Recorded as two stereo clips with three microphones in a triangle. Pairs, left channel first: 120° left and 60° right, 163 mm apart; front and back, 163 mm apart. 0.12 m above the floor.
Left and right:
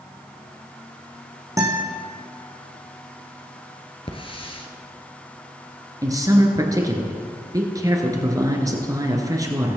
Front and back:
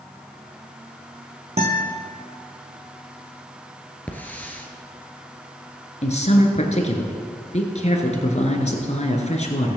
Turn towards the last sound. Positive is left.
turn(degrees=0)